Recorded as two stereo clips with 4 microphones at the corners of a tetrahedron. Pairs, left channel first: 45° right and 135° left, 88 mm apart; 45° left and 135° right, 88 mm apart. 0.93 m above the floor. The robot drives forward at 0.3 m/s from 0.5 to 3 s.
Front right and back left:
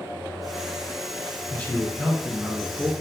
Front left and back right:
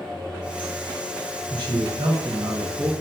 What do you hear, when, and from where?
1.5 s a man speaking: 115° right, 1.2 m; by 2.9 s 130° right, 1.4 m